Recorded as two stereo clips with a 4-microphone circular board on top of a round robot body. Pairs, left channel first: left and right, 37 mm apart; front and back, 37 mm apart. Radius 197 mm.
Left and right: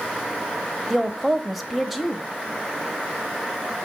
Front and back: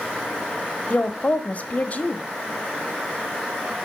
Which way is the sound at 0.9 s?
Straight ahead.